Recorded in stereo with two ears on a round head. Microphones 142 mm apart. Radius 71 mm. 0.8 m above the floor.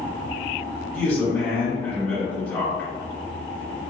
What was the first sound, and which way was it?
A man speaking, 15° left (ahead or behind).